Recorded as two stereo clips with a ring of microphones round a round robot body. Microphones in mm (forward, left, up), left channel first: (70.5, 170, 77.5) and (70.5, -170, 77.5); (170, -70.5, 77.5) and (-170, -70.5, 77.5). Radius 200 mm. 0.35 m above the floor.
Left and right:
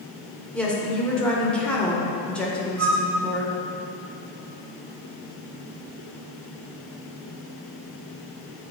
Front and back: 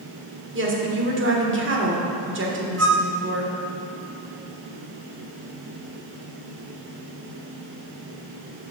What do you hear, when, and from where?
0.5 s a woman speaking: 175° left, 1.2 m
2.8 s a flute: 135° right, 0.8 m